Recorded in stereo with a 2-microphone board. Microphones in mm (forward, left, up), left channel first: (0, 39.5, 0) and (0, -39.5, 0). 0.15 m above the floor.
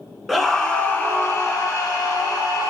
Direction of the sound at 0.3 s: Centre (ahead or behind).